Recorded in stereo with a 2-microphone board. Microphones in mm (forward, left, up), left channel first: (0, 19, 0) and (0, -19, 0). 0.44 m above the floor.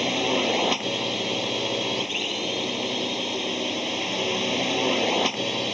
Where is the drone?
5° right (ahead or behind); by 5.8 s 5° left (ahead or behind).